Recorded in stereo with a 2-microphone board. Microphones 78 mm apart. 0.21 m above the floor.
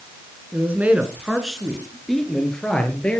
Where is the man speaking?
25° right (ahead or behind), 2.5 m; by 3.2 s 15° left (ahead or behind), 4 m.